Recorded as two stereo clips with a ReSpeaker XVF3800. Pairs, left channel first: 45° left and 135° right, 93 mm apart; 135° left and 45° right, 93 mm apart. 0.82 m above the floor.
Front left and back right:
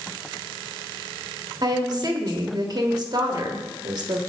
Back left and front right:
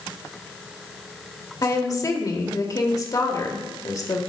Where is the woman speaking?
175° right, 1.3 m.